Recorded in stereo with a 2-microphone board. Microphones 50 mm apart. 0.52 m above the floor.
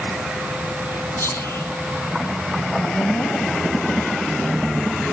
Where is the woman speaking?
60° left (ahead or behind), 3.5 m.